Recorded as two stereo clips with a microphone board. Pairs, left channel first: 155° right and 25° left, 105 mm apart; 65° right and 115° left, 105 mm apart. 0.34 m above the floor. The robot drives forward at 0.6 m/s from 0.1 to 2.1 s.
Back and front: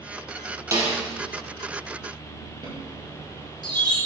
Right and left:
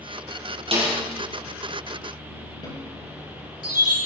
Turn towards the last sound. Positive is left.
turn(degrees=-25)